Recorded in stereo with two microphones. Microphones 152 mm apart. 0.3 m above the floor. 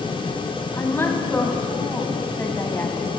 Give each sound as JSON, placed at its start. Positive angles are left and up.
{"t": 0.7, "sound": "a woman speaking", "side_deg": 15, "distance_m": 2.5}